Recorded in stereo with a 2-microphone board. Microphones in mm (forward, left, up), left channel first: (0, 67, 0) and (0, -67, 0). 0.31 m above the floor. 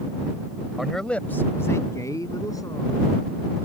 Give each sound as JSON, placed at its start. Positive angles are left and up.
{"t": 0.8, "sound": "a man speaking", "side_deg": -5}